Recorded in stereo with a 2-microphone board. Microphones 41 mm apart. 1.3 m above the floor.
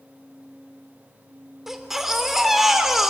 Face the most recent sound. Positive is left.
turn(degrees=-5)  # may be behind; listen again after turning